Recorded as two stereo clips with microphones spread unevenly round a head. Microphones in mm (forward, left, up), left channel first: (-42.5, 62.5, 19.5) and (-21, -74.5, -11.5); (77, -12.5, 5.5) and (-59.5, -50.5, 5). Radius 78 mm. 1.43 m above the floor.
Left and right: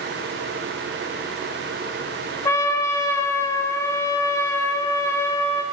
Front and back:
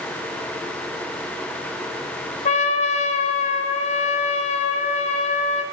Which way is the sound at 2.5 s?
45° left.